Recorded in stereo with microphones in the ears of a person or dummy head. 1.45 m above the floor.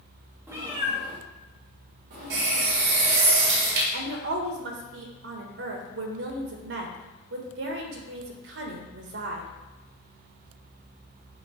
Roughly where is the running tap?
Right.